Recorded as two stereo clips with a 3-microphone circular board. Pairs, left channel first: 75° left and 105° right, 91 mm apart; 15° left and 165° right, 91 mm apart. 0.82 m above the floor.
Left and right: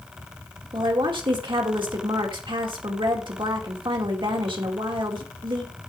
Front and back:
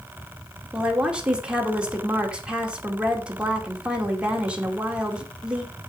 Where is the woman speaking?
85° right, 2 m.